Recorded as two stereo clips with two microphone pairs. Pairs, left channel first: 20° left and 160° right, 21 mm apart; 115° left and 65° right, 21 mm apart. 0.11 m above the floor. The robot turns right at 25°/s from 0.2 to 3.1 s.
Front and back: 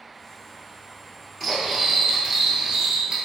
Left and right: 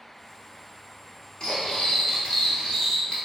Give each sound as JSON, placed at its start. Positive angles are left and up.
{"t": 1.4, "sound": "cutlery clinking", "azimuth_deg": 95, "distance_m": 1.0}